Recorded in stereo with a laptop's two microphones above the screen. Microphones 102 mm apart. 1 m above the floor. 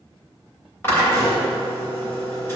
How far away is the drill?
About 3 m.